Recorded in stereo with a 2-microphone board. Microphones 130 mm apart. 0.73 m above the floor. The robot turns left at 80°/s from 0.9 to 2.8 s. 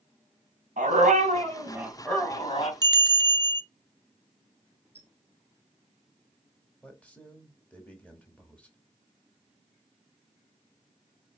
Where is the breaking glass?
No breaking glass in this recording.